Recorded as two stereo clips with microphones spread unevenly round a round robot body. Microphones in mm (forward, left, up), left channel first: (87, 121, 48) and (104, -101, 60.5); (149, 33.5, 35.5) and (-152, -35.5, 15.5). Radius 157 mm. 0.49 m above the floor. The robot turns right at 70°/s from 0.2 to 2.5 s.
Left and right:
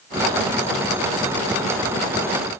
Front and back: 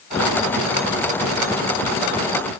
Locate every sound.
Only background noise.